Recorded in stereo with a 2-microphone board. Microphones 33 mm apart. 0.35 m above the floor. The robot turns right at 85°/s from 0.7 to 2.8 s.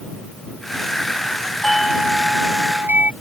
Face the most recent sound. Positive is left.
turn(degrees=-85)